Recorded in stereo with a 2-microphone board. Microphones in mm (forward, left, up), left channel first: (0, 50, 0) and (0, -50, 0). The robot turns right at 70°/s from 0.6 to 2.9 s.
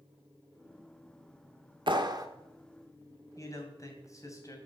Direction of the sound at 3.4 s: 35° left (ahead or behind).